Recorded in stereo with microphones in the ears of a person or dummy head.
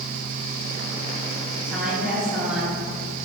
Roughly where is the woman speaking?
Centre.